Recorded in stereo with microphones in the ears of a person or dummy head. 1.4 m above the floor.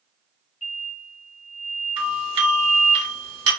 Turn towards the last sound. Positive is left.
turn(degrees=-30)  # may be behind; listen again after turning